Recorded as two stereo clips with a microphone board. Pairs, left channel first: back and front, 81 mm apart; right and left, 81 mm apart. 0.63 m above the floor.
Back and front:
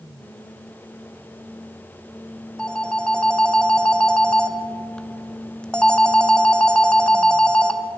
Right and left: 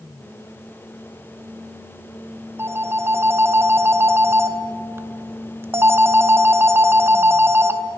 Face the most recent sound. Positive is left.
turn(degrees=110)